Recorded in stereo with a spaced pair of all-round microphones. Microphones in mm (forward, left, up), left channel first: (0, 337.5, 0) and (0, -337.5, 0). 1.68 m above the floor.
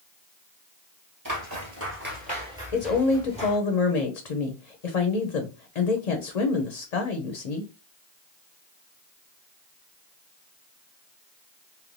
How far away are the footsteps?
About 1.8 m.